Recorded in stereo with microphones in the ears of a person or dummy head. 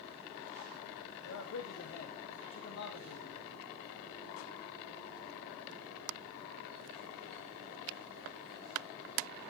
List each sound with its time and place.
1.2 s a man speaking: 70° left (ahead or behind), 1.8 m